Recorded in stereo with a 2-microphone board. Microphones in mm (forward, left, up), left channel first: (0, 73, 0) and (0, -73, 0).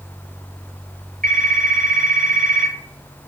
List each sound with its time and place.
1.2 s a phone ringing: 80° right, 3 m